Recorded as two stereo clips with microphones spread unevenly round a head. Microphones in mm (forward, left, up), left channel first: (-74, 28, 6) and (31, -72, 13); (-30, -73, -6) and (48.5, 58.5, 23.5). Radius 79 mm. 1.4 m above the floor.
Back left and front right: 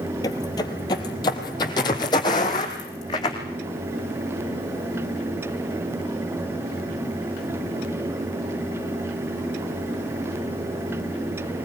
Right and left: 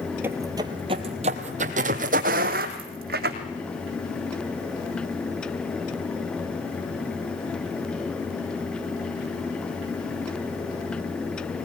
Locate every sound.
0.2 s footsteps: 95° left, 1.5 m; by 3.4 s 70° left, 3.5 m